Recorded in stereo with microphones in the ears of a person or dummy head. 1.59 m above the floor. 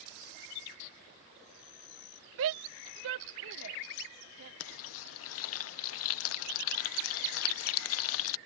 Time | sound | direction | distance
2.4 | a shout | 75° right (ahead or behind) | ?
4.6 | frying | 70° left (ahead or behind) | ?